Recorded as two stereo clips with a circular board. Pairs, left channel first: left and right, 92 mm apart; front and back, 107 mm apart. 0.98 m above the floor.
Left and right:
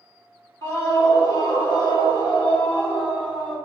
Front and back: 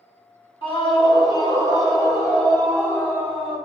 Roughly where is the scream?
Ahead left.